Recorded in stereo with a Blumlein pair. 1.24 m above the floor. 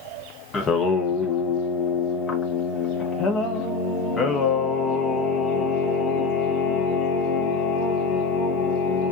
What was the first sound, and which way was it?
Singing, 20° left.